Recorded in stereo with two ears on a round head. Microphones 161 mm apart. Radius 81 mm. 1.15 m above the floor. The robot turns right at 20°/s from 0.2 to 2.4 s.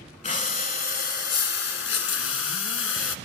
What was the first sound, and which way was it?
Breathing, 40° left.